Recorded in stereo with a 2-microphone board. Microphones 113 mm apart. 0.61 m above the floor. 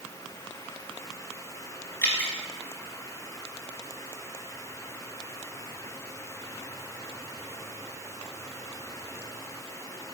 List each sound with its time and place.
2.0 s dripping: 15° left (ahead or behind), 3 m